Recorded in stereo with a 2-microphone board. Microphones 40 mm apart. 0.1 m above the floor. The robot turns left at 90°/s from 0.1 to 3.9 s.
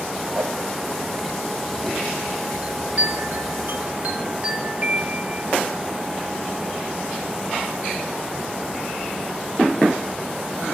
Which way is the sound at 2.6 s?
20° right.